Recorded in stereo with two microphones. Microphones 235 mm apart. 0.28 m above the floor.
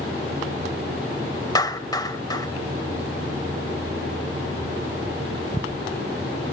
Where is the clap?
15° left (ahead or behind), 1.2 m.